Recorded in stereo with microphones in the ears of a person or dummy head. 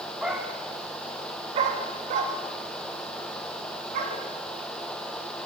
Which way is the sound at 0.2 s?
5° right (ahead or behind).